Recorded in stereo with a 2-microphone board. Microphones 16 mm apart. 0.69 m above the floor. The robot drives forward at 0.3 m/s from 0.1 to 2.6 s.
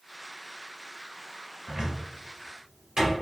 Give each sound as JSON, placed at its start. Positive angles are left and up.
{"t": 1.7, "sound": "a cupboard door", "side_deg": -50, "distance_m": 1.8}